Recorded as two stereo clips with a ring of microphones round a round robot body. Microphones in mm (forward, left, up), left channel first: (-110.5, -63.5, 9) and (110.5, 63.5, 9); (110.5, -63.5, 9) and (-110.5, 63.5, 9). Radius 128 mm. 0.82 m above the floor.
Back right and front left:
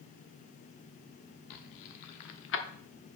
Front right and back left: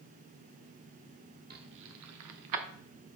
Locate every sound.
1.5 s keys jangling: 155° right, 1.1 m; by 2.6 s 160° left, 1.1 m